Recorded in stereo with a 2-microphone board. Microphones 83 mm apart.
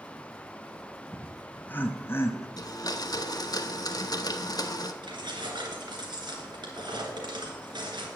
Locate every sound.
1.1 s laughter: 10° left (ahead or behind), 0.9 m; by 2.5 s 35° left (ahead or behind), 1.4 m
2.6 s a blender: 50° left (ahead or behind), 0.9 m
5.0 s keys jangling: 60° right (ahead or behind), 3 m